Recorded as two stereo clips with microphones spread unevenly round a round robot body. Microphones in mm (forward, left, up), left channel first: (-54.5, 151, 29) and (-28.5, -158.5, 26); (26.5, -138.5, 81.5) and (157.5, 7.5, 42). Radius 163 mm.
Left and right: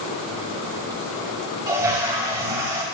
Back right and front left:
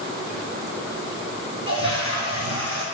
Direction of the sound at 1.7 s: 165° right.